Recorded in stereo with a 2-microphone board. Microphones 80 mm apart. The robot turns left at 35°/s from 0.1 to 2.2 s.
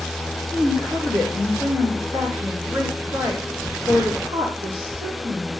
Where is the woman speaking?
50° right, 7 m; by 5.5 s 110° right, 7 m.